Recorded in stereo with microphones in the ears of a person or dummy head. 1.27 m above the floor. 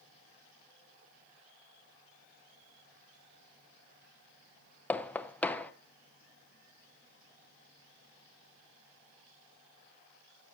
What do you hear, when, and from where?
4.9 s knocking: 10° left (ahead or behind), 0.7 m